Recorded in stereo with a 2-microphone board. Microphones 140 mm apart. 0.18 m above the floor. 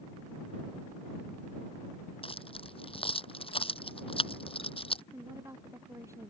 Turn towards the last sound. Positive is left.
turn(degrees=-20)  # may be behind; listen again after turning